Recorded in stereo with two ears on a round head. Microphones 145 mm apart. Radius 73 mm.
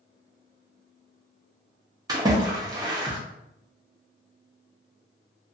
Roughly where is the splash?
Right.